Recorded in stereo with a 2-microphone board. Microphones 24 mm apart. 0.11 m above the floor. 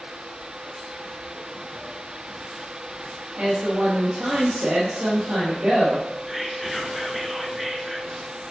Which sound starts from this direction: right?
A woman speaking, at 3.4 s.